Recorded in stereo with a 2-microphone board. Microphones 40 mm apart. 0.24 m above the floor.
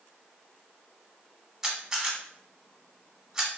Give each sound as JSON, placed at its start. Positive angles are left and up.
{"t": 1.6, "sound": "a camera shutter", "side_deg": -15, "distance_m": 1.1}